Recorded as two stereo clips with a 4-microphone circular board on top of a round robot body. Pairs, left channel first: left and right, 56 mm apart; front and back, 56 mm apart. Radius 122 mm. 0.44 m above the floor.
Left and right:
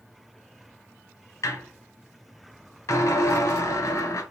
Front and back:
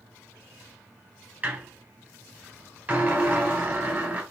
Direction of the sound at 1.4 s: 120° left.